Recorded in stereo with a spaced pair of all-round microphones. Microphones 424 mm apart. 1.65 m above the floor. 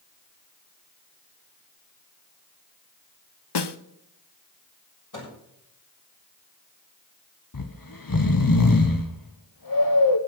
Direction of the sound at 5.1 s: 45° left (ahead or behind).